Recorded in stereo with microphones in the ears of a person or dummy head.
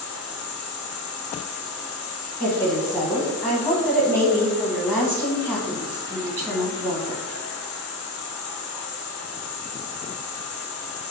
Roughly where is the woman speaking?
Centre.